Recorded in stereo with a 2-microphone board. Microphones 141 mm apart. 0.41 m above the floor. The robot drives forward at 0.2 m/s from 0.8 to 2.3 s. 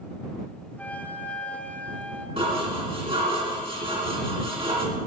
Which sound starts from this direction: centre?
A flute, at 0.8 s.